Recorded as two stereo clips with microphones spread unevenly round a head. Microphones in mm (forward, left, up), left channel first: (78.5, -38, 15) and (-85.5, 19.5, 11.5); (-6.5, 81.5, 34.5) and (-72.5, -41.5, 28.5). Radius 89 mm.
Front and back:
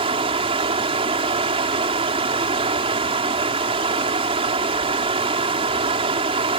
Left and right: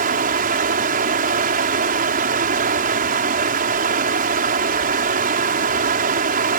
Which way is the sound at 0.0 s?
140° right.